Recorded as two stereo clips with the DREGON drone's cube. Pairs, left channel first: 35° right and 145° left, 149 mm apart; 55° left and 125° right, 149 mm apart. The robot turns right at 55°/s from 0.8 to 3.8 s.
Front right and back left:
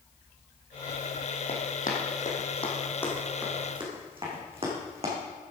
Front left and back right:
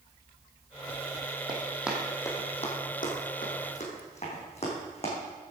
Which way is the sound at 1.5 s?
70° right.